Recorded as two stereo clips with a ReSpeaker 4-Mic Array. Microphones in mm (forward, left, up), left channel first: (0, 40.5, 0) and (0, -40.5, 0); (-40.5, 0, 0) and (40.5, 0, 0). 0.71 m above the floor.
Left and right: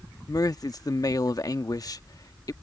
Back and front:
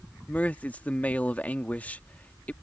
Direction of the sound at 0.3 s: 115° left.